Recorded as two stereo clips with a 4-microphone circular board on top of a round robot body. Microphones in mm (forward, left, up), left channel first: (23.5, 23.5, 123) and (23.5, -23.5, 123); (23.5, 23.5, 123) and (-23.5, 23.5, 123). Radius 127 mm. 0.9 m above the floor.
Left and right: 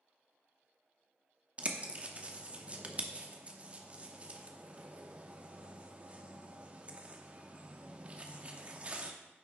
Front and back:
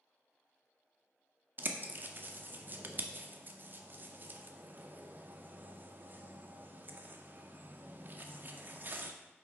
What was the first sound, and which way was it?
A bird, 145° right.